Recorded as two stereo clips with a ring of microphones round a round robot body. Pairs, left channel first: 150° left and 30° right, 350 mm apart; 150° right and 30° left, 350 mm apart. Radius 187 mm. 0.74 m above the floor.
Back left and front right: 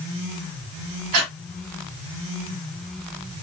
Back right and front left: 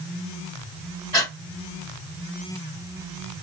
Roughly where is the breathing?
Right.